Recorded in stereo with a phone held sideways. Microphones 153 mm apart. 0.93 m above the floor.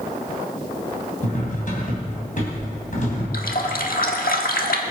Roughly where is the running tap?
Left.